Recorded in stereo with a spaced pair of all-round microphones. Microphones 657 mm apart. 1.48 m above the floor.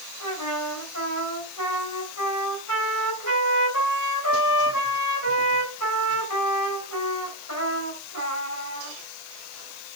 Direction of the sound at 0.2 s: 25° left (ahead or behind).